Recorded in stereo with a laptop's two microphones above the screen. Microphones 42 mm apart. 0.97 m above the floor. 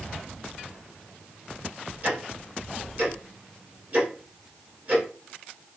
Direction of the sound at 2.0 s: 40° right (ahead or behind).